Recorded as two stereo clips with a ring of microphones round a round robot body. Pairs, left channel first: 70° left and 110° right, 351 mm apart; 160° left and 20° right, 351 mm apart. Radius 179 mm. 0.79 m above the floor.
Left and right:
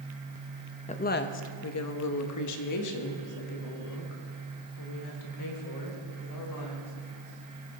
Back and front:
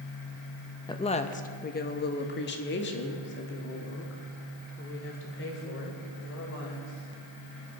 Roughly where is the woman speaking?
Left.